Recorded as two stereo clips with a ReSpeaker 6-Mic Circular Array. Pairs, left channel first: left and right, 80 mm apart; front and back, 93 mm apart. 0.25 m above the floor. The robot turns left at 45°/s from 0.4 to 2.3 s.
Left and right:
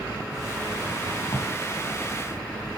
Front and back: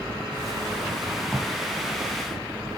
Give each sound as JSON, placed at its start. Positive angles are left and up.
{"t": 1.3, "sound": "a drawer", "azimuth_deg": 90, "distance_m": 6.0}